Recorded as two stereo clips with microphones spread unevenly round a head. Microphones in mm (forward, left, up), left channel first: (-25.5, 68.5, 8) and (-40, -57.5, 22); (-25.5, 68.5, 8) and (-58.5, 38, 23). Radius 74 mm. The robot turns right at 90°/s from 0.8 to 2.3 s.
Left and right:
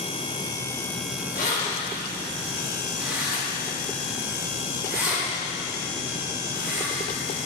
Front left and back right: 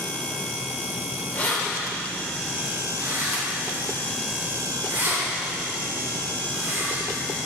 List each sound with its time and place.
1.3 s keys jangling: 95° left, 3.5 m; by 7.1 s straight behind, 3.5 m